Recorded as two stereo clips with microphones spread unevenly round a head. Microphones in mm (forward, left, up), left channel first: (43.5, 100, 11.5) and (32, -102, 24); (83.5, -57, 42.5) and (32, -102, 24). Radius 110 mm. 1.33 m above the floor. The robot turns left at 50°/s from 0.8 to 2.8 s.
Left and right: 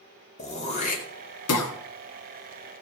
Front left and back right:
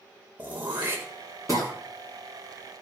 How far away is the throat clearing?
About 1.7 m.